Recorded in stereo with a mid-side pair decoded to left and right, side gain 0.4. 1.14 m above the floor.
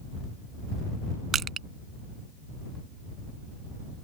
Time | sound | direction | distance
1.3 | crushing | 60° right | ?